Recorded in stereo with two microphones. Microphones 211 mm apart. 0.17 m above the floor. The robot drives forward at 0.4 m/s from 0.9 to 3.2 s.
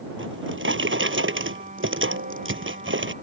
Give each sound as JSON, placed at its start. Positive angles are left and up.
{"t": 0.2, "sound": "a drawer", "side_deg": -70}